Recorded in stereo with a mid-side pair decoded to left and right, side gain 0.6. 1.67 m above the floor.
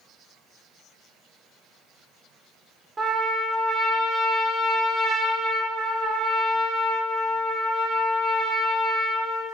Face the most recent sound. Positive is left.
turn(degrees=-30)